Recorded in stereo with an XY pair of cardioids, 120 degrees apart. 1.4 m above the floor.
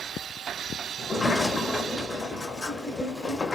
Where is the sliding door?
20° left, 0.6 m.